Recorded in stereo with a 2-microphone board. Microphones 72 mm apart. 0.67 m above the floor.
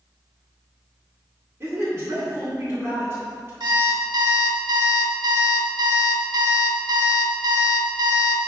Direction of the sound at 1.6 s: 35° right (ahead or behind).